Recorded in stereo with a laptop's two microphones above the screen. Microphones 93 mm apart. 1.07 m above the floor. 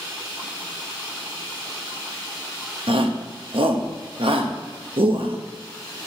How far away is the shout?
About 1.0 m.